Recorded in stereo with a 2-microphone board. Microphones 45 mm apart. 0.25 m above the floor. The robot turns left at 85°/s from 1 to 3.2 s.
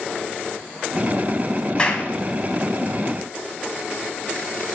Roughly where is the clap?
Left.